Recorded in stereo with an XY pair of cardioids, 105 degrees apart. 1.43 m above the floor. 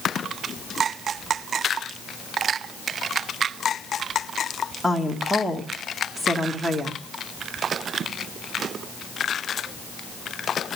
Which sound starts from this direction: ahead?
A woman speaking, at 4.8 s.